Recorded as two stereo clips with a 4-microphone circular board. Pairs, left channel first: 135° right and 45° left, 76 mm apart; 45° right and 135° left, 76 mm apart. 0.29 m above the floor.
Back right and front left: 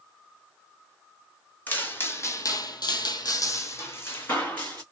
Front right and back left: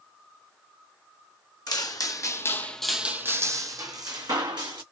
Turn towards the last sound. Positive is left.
turn(degrees=160)